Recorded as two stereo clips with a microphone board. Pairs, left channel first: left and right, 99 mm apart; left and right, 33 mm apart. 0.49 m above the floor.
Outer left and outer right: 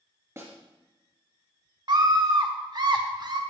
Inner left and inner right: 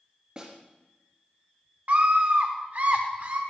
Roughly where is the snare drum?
Right.